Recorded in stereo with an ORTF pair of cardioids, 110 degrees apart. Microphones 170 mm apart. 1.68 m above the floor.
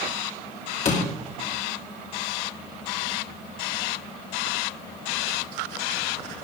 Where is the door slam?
40° left, 3.5 m.